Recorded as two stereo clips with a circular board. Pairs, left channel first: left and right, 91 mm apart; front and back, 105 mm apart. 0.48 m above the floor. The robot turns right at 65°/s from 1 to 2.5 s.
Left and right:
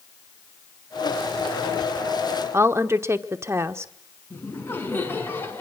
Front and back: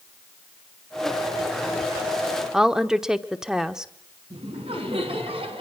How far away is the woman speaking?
About 0.9 m.